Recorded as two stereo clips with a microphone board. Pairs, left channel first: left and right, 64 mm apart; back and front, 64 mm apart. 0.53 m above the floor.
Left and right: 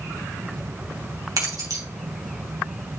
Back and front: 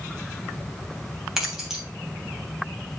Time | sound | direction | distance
1.4 | keys jangling | 80° right | 2.5 m